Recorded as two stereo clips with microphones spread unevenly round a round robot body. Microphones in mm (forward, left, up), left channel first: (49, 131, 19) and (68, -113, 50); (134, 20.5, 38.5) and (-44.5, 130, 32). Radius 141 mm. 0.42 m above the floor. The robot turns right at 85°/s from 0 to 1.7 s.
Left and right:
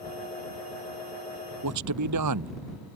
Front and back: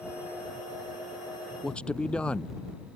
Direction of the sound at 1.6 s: 125° right.